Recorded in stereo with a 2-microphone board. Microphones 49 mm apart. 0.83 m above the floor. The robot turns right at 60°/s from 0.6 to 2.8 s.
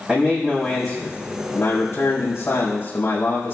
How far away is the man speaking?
About 4 m.